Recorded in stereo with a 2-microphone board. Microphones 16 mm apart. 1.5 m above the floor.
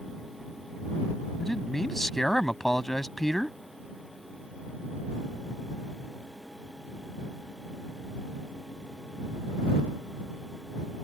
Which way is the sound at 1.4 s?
20° left (ahead or behind).